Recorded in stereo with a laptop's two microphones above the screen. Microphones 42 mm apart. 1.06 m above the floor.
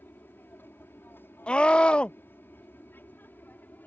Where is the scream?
30° left (ahead or behind).